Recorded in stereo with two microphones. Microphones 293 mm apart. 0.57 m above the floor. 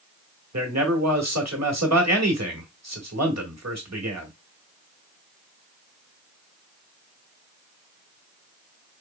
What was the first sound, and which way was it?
A man speaking, 60° right (ahead or behind).